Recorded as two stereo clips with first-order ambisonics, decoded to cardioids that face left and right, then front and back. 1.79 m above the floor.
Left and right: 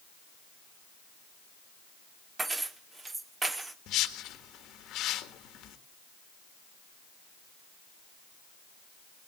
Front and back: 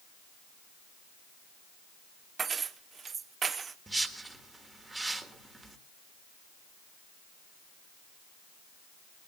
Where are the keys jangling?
150° right, 0.7 m.